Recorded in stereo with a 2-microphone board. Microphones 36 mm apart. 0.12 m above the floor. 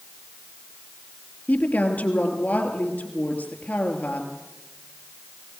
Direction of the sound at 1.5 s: 55° left (ahead or behind).